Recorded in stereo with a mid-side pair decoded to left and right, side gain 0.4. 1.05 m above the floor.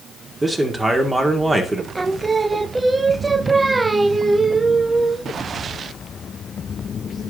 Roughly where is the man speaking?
Ahead.